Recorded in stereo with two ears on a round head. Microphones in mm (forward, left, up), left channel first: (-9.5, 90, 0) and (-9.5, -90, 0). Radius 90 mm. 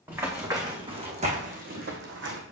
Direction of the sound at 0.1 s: 10° right (ahead or behind).